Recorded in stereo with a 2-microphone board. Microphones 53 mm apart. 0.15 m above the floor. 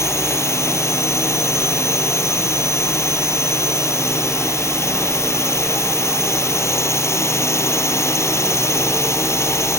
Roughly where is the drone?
Left.